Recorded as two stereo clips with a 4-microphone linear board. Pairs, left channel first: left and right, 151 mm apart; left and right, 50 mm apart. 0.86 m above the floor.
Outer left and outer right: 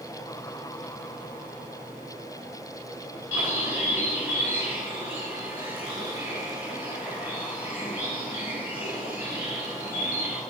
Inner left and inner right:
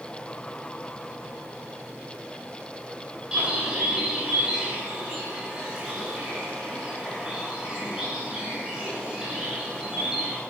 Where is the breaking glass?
I don't hear breaking glass.